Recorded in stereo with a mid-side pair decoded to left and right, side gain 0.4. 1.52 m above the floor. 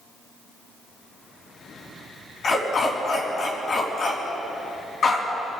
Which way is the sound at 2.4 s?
55° left.